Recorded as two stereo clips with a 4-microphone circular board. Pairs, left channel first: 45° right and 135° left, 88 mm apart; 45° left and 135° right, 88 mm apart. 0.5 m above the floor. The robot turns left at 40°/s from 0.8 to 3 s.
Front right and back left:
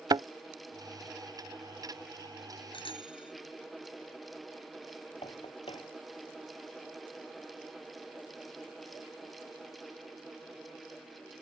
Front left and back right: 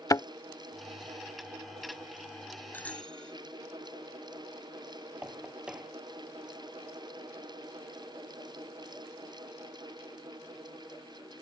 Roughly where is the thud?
Left.